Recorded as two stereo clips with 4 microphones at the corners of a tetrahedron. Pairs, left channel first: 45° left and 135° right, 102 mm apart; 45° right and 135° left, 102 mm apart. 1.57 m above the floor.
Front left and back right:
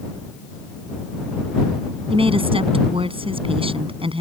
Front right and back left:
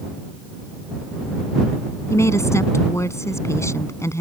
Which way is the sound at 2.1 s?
110° right.